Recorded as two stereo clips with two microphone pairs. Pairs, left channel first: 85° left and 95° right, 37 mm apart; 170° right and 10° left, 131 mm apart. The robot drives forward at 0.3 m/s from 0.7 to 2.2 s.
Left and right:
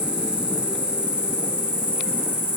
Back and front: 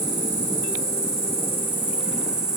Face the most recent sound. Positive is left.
turn(degrees=-75)